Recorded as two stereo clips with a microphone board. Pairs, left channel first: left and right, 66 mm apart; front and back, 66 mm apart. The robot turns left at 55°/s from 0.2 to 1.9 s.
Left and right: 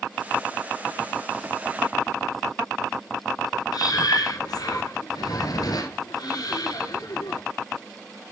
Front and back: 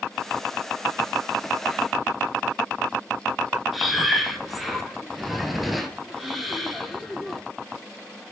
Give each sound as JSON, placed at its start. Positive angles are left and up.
{"t": 3.7, "sound": "breathing", "azimuth_deg": 90, "distance_m": 1.2}